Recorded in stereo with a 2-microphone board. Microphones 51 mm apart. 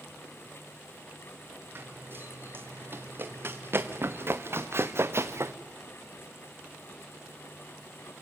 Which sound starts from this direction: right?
Running footsteps, at 1.8 s.